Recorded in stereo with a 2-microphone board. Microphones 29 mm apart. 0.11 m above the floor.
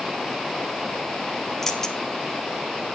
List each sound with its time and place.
1.6 s keys jangling: 15° left (ahead or behind), 2 m